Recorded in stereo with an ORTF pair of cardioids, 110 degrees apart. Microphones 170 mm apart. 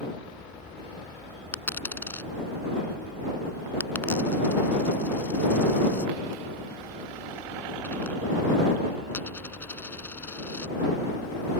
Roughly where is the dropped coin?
Ahead.